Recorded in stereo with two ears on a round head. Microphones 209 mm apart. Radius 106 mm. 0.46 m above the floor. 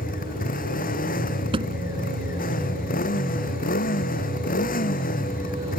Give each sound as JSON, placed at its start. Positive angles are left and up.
{"t": 0.0, "sound": "a motorcycle", "side_deg": 40}
{"t": 1.5, "sound": "a thud", "side_deg": -20}